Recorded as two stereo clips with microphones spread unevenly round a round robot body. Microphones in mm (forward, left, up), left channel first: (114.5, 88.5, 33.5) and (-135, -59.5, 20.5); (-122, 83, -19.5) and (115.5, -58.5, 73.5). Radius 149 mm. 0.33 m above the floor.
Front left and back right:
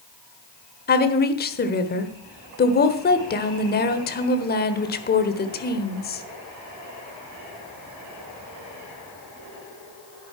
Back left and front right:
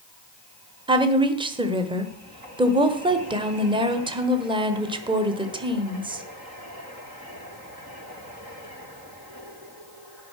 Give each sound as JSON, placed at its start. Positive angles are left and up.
{"t": 0.9, "sound": "a woman speaking", "azimuth_deg": 60, "distance_m": 1.3}